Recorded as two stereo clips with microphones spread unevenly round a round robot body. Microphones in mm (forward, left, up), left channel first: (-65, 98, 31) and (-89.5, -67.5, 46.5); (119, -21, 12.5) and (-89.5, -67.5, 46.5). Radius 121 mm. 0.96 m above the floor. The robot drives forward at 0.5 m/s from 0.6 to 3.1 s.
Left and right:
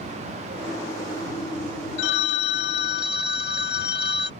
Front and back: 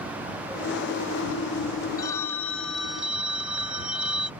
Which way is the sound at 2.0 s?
90° left.